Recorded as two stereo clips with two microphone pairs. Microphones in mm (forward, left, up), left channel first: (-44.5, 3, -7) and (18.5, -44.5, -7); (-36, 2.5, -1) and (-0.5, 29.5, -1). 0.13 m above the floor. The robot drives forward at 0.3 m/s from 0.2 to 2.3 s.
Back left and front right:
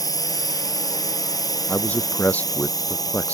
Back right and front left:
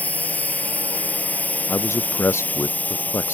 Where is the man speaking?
145° right.